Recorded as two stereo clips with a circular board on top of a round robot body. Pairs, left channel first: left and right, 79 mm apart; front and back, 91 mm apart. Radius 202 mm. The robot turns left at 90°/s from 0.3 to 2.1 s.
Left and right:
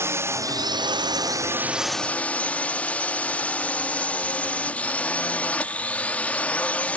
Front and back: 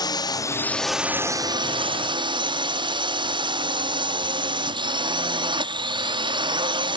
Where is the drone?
35° right; by 7.0 s 160° left.